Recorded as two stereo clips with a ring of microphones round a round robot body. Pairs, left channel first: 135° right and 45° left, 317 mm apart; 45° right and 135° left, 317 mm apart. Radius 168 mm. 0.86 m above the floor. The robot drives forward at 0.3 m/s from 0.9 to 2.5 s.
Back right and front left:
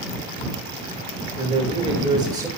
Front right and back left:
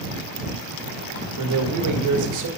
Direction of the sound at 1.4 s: 110° left.